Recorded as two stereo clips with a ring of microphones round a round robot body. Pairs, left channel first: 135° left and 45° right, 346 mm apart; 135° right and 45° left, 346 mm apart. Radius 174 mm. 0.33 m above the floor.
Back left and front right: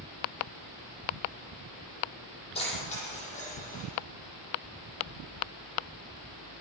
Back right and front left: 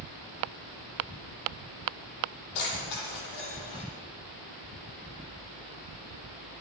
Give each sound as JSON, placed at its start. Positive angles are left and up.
{"t": 2.5, "sound": "keys jangling", "azimuth_deg": -150, "distance_m": 8.0}